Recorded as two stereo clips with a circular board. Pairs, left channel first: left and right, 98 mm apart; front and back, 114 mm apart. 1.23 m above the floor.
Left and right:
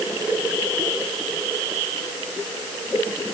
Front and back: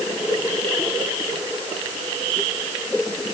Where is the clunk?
I don't hear a clunk.